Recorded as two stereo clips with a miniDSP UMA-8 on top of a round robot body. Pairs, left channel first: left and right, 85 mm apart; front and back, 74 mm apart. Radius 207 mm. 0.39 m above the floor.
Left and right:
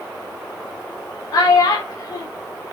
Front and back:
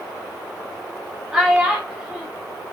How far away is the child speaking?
About 0.6 m.